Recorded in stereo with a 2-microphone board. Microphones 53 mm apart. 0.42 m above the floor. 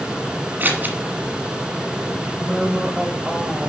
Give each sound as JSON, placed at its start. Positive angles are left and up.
{"t": 0.6, "sound": "scissors", "side_deg": -40, "distance_m": 1.4}
{"t": 2.2, "sound": "a woman speaking", "side_deg": -20, "distance_m": 1.7}